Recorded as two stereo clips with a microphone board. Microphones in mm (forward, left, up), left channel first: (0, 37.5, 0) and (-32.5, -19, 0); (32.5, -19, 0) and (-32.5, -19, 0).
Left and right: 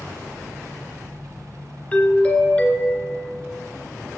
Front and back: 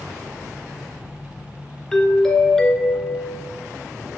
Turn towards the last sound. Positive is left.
turn(degrees=65)